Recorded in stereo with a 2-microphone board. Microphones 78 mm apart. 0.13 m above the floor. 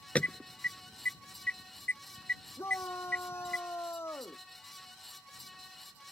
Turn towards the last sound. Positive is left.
turn(degrees=35)  # may be behind; listen again after turning